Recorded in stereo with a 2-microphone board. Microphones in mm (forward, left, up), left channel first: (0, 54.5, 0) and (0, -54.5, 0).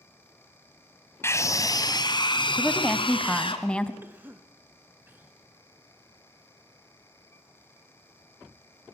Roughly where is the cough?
Centre.